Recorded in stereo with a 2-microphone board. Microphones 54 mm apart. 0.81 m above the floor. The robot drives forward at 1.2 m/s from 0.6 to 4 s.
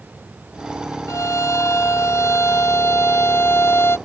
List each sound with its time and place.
1.1 s a violin: 75° left (ahead or behind); by 4.0 s 50° left (ahead or behind)